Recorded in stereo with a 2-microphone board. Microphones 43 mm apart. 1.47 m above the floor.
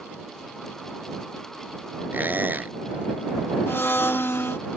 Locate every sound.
2.1 s a squeak: 50° right (ahead or behind)
3.7 s a blender: 80° left